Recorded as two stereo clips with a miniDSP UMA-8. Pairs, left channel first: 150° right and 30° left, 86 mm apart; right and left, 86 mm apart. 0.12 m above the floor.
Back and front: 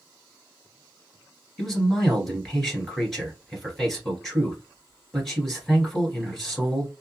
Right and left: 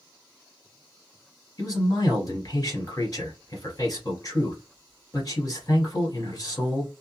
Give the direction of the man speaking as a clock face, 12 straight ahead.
2 o'clock.